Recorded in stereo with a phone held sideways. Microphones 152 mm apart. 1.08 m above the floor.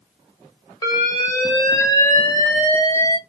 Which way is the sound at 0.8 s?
25° left (ahead or behind).